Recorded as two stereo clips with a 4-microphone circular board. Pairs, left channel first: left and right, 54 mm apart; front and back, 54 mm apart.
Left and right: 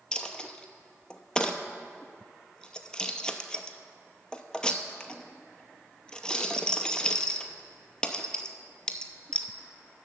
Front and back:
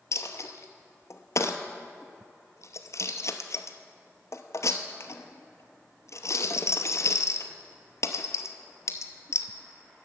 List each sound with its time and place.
0.1 s a dropped coin: 15° left, 0.7 m